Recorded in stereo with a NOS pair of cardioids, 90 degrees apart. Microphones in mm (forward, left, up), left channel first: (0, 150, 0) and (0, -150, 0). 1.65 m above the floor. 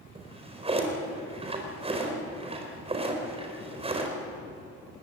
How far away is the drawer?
About 4.5 m.